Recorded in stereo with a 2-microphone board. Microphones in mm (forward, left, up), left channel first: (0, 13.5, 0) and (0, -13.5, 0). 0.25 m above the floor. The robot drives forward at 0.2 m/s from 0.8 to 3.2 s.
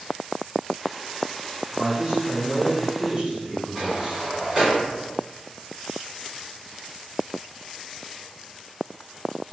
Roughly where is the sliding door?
Centre.